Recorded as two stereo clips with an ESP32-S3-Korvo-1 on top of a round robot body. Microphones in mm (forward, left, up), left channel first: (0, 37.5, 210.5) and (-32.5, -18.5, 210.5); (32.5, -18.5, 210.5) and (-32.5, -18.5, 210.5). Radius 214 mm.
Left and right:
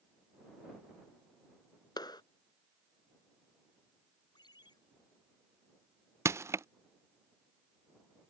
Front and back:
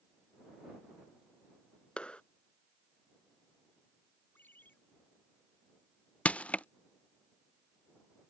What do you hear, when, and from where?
2.0 s a clap: 75° left
4.3 s a ringtone: 65° left
6.2 s crushing: 70° right